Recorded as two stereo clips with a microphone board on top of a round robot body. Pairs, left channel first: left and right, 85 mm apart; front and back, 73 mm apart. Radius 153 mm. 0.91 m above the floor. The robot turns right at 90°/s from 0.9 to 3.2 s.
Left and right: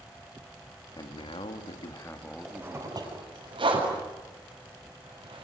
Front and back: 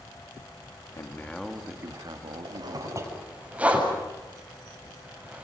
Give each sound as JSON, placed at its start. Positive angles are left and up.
{"t": 1.0, "sound": "a man speaking", "azimuth_deg": 45, "distance_m": 2.0}
{"t": 2.5, "sound": "a zipper", "azimuth_deg": -175, "distance_m": 7.5}